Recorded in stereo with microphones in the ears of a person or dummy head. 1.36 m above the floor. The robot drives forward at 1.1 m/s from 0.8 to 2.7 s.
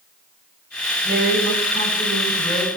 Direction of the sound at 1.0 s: 65° right (ahead or behind).